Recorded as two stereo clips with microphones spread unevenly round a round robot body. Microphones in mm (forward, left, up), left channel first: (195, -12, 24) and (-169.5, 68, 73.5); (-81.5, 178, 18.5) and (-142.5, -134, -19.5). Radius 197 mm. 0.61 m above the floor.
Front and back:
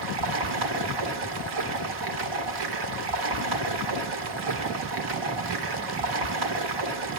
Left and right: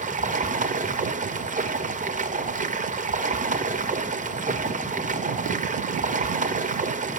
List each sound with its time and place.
0.0 s running water: 165° right, 1.6 m